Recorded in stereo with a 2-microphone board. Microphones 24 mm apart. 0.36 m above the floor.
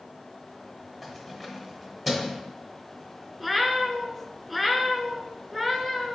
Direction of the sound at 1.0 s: 10° left (ahead or behind).